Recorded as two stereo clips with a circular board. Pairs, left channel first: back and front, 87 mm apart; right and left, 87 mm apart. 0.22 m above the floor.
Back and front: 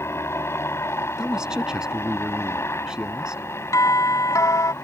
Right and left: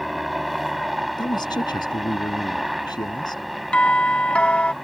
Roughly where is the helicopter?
Behind.